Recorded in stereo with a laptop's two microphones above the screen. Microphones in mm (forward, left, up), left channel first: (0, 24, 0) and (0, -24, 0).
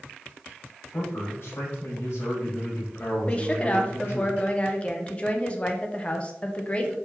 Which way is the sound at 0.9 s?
70° left (ahead or behind).